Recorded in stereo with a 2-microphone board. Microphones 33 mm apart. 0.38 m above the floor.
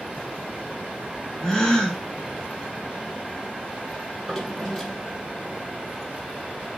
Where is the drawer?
10° left (ahead or behind), 6 m.